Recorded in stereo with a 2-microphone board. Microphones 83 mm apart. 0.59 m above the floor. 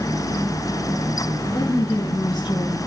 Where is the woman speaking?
55° left (ahead or behind), 3.5 m; by 2.8 s 80° left, 4 m.